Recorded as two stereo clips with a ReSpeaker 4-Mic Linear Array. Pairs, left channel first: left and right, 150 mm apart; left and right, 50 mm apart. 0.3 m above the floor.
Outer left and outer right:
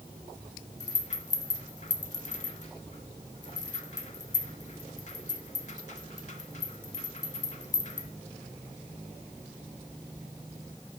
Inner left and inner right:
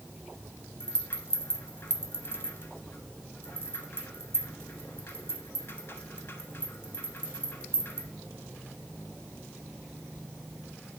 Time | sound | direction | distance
0.8 | a rattle | 50° left (ahead or behind) | 0.7 m